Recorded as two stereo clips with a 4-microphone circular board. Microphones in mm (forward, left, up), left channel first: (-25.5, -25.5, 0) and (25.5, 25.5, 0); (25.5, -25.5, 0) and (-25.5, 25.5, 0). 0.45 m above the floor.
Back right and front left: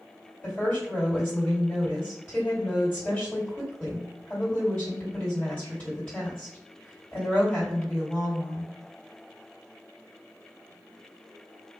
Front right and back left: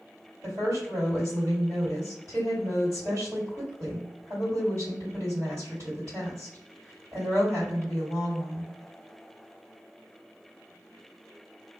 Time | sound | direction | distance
0.4 | a woman speaking | 165° left | 1.8 m